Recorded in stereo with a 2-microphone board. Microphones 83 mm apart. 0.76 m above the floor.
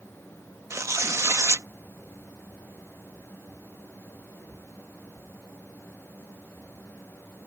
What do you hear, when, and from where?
0.7 s tearing paper: 35° right (ahead or behind)